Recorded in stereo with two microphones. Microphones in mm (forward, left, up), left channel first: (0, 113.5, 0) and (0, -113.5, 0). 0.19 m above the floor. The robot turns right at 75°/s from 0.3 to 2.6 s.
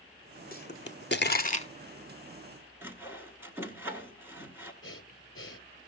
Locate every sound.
0.5 s a pop: 40° left (ahead or behind), 0.7 m; by 1.7 s 25° left (ahead or behind), 0.7 m
2.8 s sawing: 10° right (ahead or behind), 1.5 m
4.8 s breathing: 60° left (ahead or behind), 1.1 m